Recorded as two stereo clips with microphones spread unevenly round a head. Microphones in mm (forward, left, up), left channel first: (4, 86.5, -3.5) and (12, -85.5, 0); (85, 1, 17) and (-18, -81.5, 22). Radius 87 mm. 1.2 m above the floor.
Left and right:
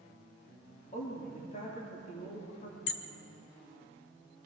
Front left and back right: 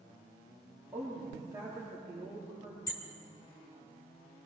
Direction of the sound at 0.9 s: 140° left.